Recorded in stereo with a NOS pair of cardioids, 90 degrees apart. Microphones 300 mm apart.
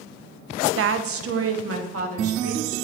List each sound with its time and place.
0.8 s a woman speaking: 45° right, 0.6 m; by 2.8 s 50° right, 2 m